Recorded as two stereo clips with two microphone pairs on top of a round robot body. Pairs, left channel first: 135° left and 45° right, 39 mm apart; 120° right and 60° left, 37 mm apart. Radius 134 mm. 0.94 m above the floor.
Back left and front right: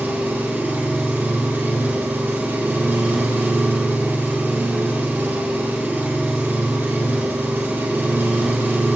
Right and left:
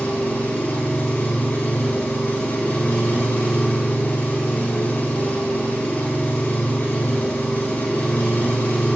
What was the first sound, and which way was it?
An engine running, 75° right.